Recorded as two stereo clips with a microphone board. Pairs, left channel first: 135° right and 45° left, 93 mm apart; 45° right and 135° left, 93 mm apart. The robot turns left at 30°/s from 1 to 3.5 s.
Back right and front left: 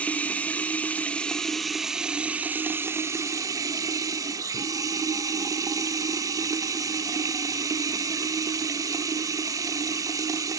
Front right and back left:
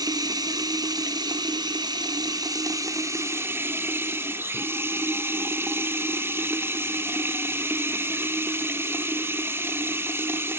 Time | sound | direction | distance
0.0 | running water | 155° left | 0.9 m